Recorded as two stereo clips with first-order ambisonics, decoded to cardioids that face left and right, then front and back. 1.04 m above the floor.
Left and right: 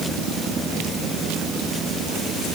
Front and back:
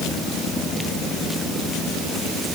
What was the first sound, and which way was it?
Only background noise.